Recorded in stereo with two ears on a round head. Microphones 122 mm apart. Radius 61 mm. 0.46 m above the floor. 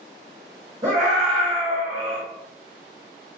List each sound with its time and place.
0.8 s a scream: 30° right (ahead or behind), 1.3 m